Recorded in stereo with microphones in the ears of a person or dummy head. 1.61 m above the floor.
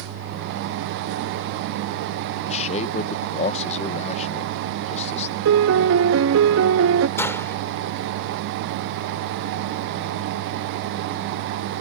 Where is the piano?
70° right (ahead or behind).